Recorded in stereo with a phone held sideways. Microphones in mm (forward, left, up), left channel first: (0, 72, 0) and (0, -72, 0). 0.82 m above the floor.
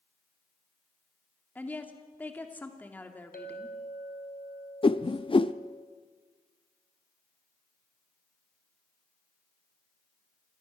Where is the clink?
80° left, 2.5 m.